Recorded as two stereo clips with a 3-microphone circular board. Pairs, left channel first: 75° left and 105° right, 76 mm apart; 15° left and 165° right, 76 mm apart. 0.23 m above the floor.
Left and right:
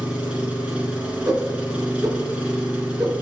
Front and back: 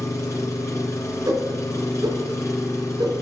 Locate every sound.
0.0 s an engine running: 30° right, 1.8 m
1.3 s a whoosh: 135° right, 3 m